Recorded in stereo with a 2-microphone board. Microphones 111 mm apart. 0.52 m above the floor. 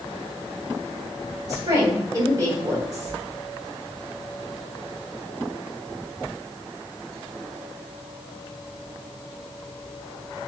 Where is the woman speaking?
35° right (ahead or behind), 1.9 m.